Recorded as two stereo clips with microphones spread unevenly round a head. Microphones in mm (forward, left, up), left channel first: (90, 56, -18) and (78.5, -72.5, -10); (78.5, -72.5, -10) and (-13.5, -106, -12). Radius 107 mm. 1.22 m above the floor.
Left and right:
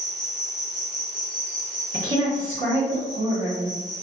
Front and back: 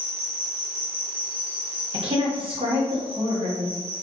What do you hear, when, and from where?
0.0 s an insect: 5° right, 1.3 m
1.9 s a woman speaking: 135° right, 1.1 m